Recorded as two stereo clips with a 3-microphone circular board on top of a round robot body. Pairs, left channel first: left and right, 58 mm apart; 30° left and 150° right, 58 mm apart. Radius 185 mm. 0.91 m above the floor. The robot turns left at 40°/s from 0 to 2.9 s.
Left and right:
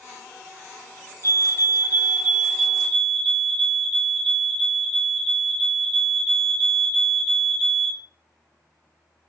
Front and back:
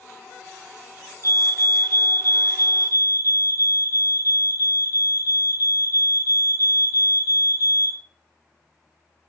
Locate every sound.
1.2 s a fire alarm: 120° right, 4 m; by 8.0 s 175° left, 4 m